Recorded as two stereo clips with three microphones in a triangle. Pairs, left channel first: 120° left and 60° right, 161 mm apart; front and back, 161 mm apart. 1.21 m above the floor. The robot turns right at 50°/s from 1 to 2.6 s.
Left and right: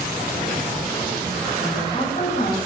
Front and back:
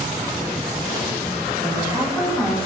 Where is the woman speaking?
45° left, 8.5 m; by 2.6 s 90° left, 8.5 m.